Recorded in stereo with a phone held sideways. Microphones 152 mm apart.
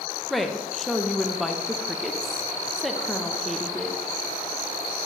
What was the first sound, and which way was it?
A woman speaking, centre (ahead or behind).